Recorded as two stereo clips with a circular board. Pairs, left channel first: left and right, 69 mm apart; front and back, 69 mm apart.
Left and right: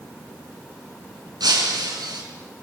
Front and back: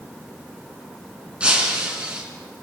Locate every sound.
1.4 s breaking glass: 105° right, 6 m